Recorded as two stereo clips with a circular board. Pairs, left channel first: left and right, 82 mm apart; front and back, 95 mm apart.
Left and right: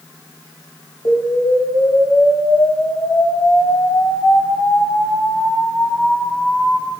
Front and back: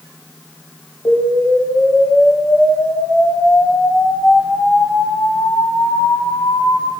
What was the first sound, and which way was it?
An explosion, 80° left.